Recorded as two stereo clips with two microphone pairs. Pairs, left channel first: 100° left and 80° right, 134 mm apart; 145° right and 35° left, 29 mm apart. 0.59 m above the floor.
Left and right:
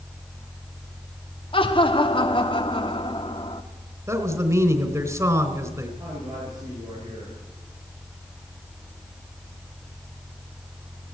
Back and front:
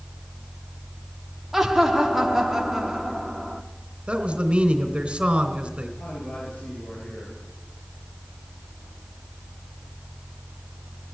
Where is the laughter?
115° left, 1.1 m.